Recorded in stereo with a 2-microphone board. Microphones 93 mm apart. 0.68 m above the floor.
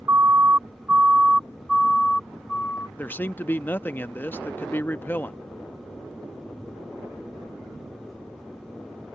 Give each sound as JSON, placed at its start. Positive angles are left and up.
{"t": 0.1, "sound": "a siren", "side_deg": -25}
{"t": 3.0, "sound": "a man speaking", "side_deg": 20}